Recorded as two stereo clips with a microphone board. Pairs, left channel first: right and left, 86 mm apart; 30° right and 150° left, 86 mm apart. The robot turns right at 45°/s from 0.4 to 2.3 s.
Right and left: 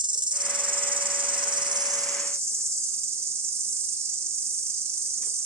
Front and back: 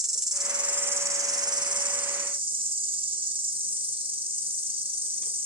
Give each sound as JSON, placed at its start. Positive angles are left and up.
{"t": 0.0, "sound": "an insect", "azimuth_deg": 65, "distance_m": 0.8}